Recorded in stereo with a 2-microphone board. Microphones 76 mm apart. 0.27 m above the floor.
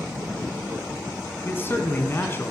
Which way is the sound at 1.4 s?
30° left (ahead or behind).